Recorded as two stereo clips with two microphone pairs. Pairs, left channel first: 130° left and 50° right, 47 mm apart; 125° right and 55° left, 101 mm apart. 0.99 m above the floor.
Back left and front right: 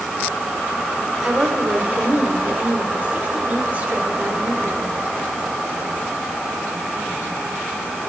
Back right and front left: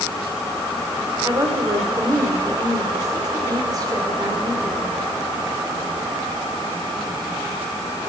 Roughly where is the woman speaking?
Ahead.